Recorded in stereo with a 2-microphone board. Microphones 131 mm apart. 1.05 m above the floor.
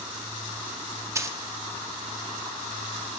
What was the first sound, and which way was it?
A dropped coin, 20° right (ahead or behind).